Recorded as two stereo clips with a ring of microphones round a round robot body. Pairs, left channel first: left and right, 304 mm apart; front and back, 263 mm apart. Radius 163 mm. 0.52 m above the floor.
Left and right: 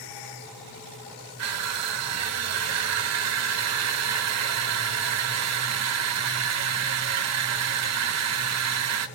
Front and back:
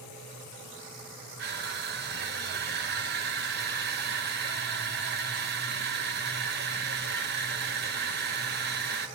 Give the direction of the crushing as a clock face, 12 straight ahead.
4 o'clock.